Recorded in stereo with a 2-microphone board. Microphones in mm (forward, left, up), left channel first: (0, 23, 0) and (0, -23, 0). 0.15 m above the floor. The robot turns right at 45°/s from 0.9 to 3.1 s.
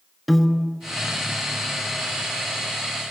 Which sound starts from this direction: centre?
A piano, at 0.3 s.